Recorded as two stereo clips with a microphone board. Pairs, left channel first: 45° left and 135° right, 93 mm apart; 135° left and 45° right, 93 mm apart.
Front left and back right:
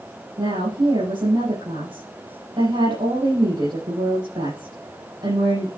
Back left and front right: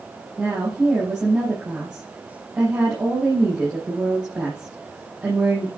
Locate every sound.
0.4 s a woman speaking: 120° right, 6.5 m